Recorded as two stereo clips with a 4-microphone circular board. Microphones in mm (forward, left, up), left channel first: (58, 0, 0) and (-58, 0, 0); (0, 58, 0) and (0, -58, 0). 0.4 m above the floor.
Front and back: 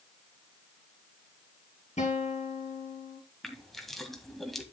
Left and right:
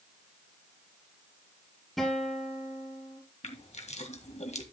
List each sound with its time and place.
2.0 s a guitar: straight ahead, 3.5 m
3.4 s crushing: 90° left, 1.7 m